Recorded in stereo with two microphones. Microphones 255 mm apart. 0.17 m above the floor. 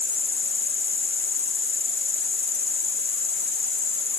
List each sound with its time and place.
0.0 s an insect: 40° right (ahead or behind)